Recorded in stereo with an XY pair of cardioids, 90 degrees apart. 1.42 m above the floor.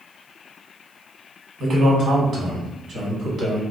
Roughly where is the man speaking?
Ahead right.